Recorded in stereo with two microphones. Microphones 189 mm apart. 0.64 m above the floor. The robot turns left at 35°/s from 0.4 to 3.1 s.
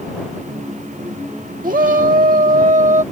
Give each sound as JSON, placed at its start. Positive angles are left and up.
{"t": 1.6, "sound": "a shout", "azimuth_deg": -75}